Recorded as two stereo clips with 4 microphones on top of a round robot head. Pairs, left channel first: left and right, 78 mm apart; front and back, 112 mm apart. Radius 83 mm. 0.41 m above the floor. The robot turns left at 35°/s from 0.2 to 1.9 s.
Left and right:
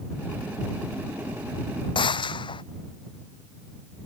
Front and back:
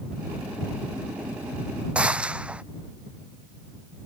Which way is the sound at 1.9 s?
100° left.